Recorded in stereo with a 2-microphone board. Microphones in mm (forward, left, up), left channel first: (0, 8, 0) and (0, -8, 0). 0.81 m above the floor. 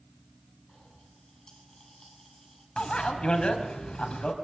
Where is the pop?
30° left (ahead or behind), 8.5 m.